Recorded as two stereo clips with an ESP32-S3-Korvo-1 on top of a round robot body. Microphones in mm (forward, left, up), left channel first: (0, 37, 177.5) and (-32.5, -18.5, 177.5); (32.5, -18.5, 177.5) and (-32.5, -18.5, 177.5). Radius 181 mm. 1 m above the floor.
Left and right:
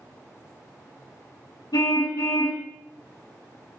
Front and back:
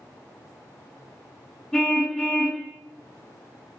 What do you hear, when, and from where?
1.7 s a car horn: 85° left, 4 m